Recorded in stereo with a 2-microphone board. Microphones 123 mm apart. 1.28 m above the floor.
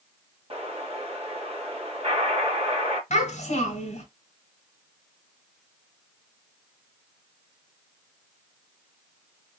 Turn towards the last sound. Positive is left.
turn(degrees=60)  # may be behind; listen again after turning